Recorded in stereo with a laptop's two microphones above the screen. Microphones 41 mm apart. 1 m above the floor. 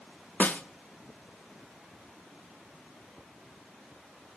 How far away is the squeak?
No squeak in this recording.